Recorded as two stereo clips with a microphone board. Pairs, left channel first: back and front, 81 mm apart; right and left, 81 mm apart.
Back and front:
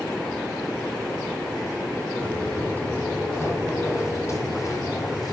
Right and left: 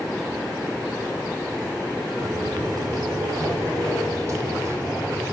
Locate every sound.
2.2 s footsteps: 110° left, 2.5 m; by 5.3 s 145° left, 3 m